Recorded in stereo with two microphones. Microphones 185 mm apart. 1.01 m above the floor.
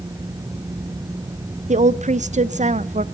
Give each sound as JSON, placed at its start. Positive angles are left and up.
{"t": 1.7, "sound": "a woman speaking", "side_deg": -40, "distance_m": 0.5}